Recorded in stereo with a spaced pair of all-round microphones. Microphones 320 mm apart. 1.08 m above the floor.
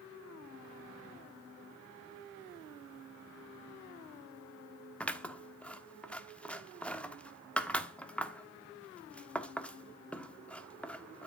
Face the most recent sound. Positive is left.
turn(degrees=5)  # may be behind; listen again after turning